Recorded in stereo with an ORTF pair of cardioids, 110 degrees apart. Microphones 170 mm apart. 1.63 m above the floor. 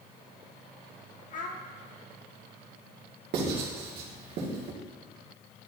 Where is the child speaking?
55° left, 1.2 m.